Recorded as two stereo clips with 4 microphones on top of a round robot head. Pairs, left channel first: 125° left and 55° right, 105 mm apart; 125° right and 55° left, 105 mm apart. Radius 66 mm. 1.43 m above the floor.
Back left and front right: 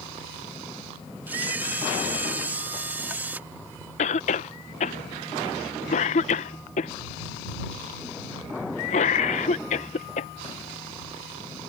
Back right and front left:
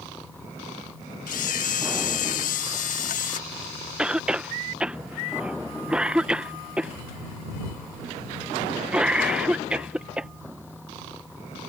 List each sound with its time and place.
1.3 s a camera shutter: 130° right
4.0 s a cough: 140° left